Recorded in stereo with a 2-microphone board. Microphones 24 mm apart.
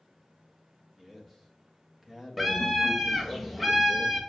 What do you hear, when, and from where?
1.0 s a man speaking: 5° right (ahead or behind), 1.5 m
2.4 s a scream: 5° right (ahead or behind), 1.3 m